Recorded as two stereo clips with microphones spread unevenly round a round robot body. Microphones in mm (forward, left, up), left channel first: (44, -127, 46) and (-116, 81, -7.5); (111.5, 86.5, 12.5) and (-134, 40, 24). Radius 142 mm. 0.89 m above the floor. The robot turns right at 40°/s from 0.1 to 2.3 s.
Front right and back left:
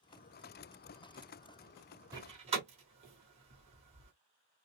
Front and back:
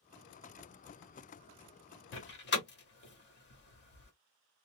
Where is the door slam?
50° left, 1.4 m; by 4.1 s 60° left, 1.4 m.